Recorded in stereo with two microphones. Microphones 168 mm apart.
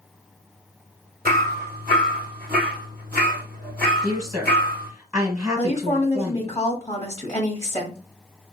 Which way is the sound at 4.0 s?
20° right (ahead or behind).